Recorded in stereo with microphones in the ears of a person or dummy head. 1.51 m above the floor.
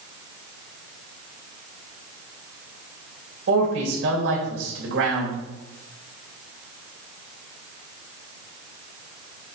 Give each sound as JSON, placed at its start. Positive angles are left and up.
{"t": 3.5, "sound": "a man speaking", "side_deg": -75, "distance_m": 3.5}